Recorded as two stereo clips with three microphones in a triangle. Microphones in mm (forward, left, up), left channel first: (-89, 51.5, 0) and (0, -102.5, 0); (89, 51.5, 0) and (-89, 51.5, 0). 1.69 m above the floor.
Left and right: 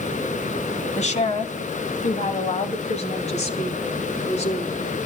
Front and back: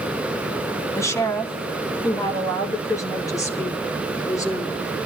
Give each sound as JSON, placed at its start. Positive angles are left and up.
{"t": 0.9, "sound": "a woman speaking", "azimuth_deg": 75, "distance_m": 1.9}